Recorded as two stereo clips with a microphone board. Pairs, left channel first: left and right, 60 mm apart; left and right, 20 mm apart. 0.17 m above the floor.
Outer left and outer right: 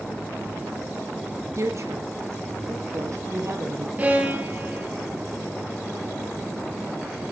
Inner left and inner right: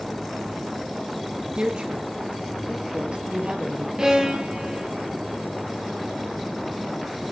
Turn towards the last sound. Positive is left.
turn(degrees=-30)  # may be behind; listen again after turning